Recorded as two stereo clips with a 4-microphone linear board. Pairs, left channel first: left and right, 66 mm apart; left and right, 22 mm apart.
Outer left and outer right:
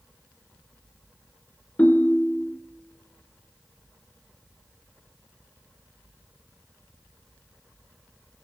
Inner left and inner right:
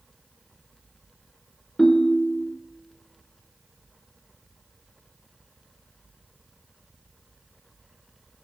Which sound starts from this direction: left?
A ringtone, at 1.8 s.